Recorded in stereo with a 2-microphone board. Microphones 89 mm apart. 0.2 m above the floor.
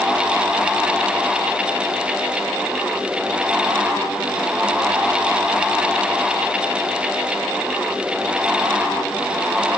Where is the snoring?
I don't hear snoring.